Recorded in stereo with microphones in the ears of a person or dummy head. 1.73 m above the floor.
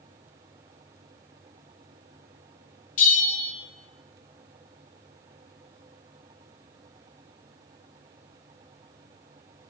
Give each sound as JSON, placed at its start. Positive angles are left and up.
{"t": 3.0, "sound": "a bell", "side_deg": 35, "distance_m": 1.9}